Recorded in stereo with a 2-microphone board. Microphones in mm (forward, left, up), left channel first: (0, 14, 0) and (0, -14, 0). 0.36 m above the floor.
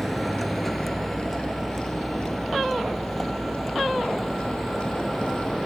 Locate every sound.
0.0 s a vehicle: centre (ahead or behind); by 5.7 s 5° left (ahead or behind)